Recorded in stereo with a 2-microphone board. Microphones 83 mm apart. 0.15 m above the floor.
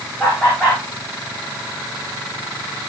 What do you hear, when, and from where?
0.2 s laughter: 15° left (ahead or behind), 9.5 m